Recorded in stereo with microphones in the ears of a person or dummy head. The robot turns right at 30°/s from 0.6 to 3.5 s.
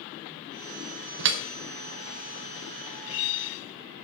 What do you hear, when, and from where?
1.2 s dripping: 70° right (ahead or behind), 0.8 m; by 1.4 s 65° right (ahead or behind), 0.8 m